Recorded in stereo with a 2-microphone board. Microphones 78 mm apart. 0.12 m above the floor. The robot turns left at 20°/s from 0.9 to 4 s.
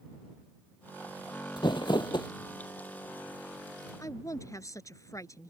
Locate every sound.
1.6 s crumpling: 70° left (ahead or behind)
4.0 s a woman speaking: 45° left (ahead or behind)